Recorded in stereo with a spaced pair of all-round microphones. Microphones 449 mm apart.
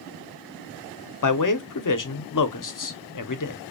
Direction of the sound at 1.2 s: 45° left (ahead or behind).